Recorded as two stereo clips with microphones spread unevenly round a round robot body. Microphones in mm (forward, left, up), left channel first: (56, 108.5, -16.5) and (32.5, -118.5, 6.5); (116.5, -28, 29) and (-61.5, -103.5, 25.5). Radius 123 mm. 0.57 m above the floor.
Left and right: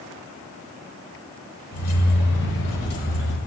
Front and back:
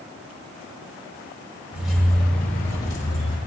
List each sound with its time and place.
1.7 s keys jangling: 120° left, 1.2 m; by 3.4 s 60° left, 2 m